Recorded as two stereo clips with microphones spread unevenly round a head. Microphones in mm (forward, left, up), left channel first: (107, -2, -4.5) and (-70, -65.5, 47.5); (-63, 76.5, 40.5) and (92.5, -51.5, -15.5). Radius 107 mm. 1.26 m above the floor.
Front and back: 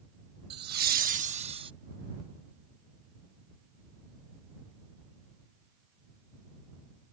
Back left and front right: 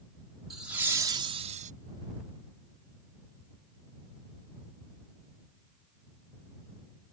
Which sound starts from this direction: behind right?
Laughter, at 0.5 s.